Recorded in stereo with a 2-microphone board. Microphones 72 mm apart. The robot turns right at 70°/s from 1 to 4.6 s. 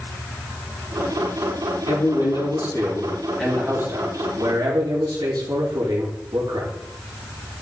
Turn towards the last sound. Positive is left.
turn(degrees=-90)